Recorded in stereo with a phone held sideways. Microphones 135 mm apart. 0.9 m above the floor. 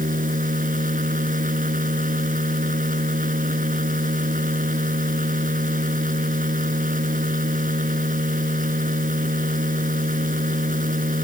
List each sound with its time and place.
0.0 s a machine running: 90° right